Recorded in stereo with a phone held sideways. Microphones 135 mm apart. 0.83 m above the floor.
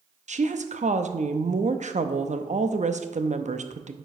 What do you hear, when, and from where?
0.3 s a woman speaking: 60° right (ahead or behind), 0.7 m